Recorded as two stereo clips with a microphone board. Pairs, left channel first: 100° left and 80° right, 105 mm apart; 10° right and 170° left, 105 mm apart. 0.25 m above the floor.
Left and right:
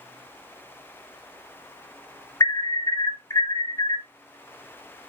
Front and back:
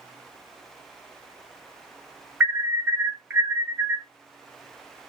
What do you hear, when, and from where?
2.4 s an alarm: 105° left, 1.2 m